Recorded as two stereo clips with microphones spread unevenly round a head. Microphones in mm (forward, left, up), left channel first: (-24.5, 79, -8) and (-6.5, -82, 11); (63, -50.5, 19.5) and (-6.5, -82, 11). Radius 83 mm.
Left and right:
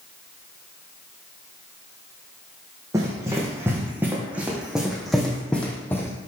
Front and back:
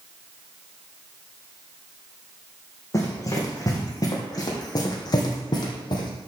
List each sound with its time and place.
2.9 s running footsteps: 15° right, 4 m; by 6.1 s 20° left, 2.5 m